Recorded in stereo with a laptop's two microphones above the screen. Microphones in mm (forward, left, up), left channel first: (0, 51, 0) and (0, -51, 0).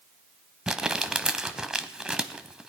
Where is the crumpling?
5° right (ahead or behind), 0.9 m.